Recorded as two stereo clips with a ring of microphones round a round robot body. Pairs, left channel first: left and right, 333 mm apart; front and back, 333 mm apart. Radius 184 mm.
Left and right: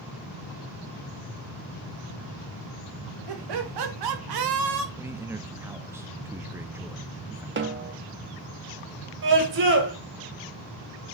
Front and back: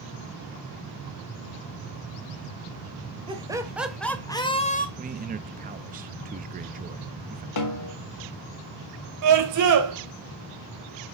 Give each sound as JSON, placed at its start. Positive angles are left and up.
{"t": 3.3, "sound": "laughter", "azimuth_deg": -105, "distance_m": 2.5}
{"t": 5.0, "sound": "a man speaking", "azimuth_deg": -165, "distance_m": 0.6}
{"t": 7.6, "sound": "a snare drum", "azimuth_deg": -35, "distance_m": 1.8}
{"t": 9.2, "sound": "a scream", "azimuth_deg": -150, "distance_m": 3.0}